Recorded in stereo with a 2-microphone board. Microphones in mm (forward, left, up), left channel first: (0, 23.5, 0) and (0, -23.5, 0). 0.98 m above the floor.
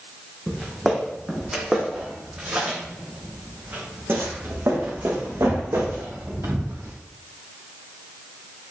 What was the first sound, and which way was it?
Footsteps, centre (ahead or behind).